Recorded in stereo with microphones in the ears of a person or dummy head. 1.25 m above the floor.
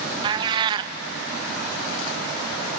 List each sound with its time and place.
0.2 s a cat meowing: 25° right (ahead or behind), 0.6 m